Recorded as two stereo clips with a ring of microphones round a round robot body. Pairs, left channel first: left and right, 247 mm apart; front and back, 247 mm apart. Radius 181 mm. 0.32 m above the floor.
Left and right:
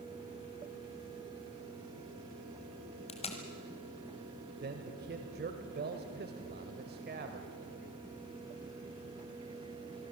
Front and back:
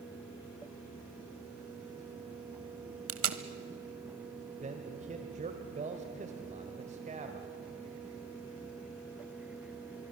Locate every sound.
3.1 s tape being pulled: 155° left, 1.3 m
4.6 s a man speaking: 125° right, 1.2 m